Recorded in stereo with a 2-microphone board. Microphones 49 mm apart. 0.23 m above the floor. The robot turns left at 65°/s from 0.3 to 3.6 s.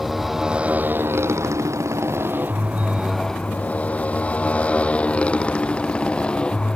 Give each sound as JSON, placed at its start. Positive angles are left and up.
{"t": 0.0, "sound": "a motorcycle", "side_deg": -5}